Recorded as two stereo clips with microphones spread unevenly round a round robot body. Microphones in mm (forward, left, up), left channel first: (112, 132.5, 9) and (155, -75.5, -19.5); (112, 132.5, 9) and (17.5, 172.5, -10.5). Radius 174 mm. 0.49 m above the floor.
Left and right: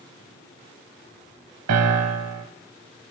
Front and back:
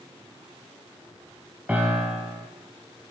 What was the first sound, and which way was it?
A piano, 115° right.